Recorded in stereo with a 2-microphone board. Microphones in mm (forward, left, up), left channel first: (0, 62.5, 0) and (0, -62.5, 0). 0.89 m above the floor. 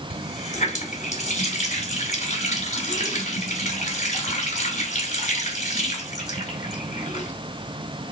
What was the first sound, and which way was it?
A running tap, 70° left (ahead or behind).